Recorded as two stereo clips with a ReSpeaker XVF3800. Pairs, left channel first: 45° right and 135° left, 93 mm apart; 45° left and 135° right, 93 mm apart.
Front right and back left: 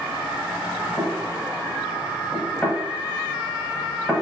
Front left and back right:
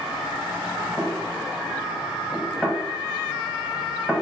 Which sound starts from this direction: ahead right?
Knocking, at 1.0 s.